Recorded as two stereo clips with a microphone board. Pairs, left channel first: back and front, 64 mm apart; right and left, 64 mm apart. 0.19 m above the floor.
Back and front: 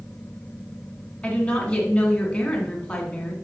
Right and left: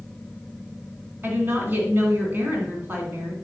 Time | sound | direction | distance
1.2 | a woman speaking | 125° left | 1.9 m